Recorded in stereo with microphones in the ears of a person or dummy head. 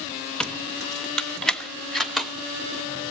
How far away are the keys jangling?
About 0.7 m.